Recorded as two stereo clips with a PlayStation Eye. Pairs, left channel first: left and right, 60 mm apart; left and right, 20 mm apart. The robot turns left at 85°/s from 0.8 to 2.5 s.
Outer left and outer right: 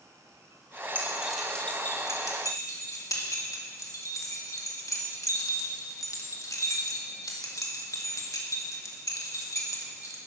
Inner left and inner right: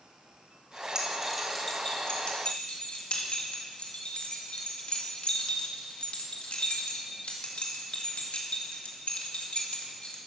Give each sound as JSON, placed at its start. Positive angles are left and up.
{"t": 0.9, "sound": "keys jangling", "side_deg": -35, "distance_m": 2.0}